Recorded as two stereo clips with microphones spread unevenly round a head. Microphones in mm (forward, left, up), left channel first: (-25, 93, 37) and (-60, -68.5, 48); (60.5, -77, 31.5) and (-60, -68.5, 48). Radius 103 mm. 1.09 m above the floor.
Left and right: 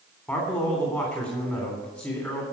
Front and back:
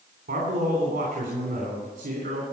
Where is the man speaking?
155° left, 3 m.